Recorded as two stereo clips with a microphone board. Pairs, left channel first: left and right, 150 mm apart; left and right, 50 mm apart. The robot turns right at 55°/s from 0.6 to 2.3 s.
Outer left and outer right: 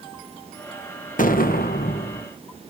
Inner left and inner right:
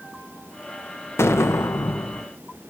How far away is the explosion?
About 0.9 m.